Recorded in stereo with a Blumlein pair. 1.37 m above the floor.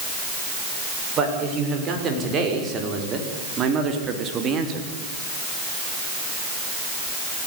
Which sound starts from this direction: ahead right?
A man speaking, at 1.2 s.